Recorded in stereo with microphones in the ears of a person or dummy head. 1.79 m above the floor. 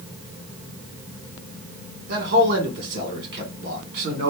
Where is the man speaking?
50° right (ahead or behind), 1.4 m.